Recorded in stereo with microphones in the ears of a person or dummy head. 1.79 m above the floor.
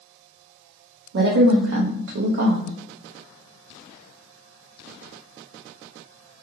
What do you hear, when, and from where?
1.1 s a woman speaking: 70° right (ahead or behind), 0.6 m